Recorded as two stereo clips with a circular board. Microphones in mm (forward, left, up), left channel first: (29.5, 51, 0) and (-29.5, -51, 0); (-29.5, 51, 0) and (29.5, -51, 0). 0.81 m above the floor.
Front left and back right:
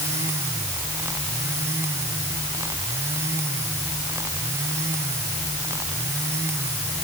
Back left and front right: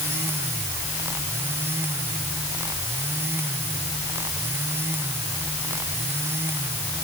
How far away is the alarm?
I don't hear an alarm.